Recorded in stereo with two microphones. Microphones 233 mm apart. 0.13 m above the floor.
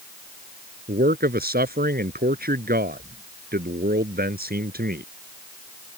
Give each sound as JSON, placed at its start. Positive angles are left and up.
{"t": 0.9, "sound": "a man speaking", "side_deg": -40}